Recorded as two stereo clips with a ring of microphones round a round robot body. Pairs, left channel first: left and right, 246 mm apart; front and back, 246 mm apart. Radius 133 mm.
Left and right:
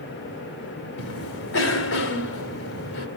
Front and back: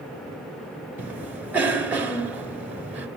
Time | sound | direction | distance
1.0 | a cough | 95° left | 1.8 m